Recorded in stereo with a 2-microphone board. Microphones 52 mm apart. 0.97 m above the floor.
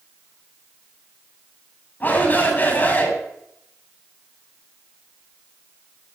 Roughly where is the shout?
Left.